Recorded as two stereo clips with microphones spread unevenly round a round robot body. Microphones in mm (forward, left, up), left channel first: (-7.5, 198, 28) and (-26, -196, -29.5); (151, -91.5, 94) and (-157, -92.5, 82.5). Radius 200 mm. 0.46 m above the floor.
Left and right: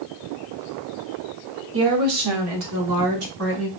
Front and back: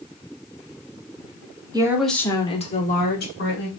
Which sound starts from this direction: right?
A woman speaking, at 1.7 s.